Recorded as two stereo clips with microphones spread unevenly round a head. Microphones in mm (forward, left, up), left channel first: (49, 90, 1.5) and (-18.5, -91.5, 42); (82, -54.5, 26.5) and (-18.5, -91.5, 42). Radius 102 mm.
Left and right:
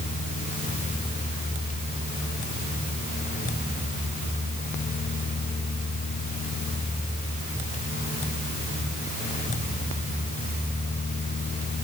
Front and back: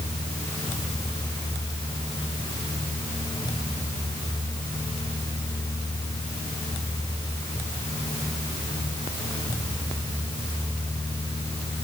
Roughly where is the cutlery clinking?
No cutlery clinking in this recording.